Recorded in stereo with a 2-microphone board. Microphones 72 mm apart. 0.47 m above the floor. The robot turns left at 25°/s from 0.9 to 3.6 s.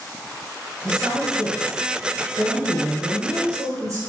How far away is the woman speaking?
About 3 m.